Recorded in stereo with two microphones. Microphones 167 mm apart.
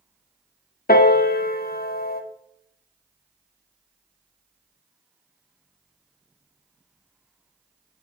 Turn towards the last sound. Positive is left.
turn(degrees=65)  # may be behind; listen again after turning